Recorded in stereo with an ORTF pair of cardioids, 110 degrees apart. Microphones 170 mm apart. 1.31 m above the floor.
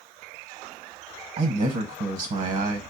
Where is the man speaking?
45° right, 0.9 m.